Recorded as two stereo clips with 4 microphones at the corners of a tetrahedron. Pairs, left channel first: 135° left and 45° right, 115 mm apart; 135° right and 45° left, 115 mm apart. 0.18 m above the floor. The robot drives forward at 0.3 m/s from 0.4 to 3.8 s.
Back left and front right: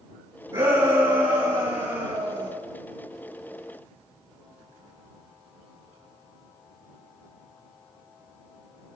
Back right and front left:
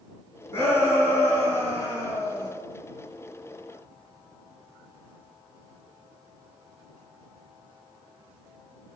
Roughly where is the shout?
Right.